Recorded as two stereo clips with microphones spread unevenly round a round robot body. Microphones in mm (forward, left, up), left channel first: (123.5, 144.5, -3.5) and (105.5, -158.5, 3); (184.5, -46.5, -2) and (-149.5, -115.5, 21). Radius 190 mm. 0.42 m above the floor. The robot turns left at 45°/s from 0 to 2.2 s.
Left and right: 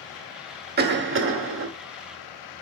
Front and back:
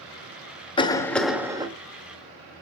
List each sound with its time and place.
0.8 s a cough: 50° right, 1.4 m; by 1.7 s 95° right, 1.4 m